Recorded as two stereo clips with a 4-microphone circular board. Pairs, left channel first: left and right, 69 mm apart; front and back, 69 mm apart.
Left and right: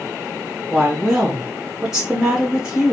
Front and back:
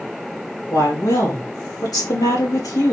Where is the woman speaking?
10° right, 2.5 m.